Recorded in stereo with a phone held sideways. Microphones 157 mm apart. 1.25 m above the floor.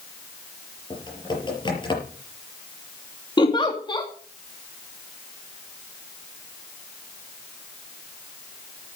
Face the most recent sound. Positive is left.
turn(degrees=30)  # may be behind; listen again after turning